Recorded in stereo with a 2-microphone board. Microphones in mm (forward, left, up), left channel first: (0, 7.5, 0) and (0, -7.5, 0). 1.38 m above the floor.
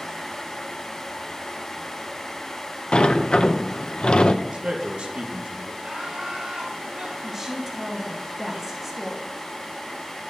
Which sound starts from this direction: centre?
A woman speaking, at 7.2 s.